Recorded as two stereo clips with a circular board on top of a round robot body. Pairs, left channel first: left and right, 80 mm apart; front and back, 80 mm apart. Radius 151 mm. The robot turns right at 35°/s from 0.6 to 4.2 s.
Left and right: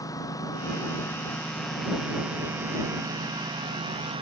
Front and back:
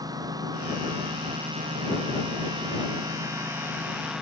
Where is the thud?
No thud in this recording.